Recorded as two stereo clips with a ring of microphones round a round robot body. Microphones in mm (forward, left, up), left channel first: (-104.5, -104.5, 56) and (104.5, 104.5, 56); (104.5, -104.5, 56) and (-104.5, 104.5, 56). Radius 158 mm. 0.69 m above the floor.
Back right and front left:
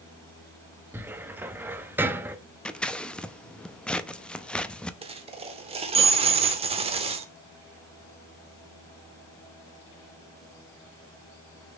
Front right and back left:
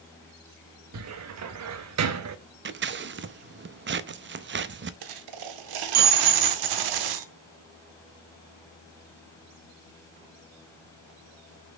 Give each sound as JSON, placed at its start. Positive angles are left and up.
{"t": 0.9, "sound": "a cupboard door", "azimuth_deg": 125, "distance_m": 0.7}
{"t": 2.6, "sound": "scissors", "azimuth_deg": 140, "distance_m": 0.6}
{"t": 5.0, "sound": "a dropped coin", "azimuth_deg": 120, "distance_m": 0.8}